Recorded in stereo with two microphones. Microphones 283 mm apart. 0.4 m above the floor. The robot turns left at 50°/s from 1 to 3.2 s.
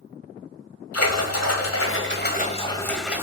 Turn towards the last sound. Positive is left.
turn(degrees=-10)